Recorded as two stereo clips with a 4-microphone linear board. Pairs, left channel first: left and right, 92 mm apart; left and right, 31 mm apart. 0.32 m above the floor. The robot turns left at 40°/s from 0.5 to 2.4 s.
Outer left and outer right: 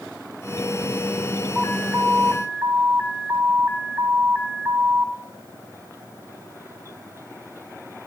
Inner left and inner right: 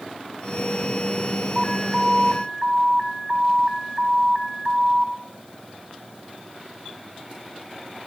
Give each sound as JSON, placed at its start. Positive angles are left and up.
{"t": 1.6, "sound": "an alarm", "azimuth_deg": -15, "distance_m": 2.0}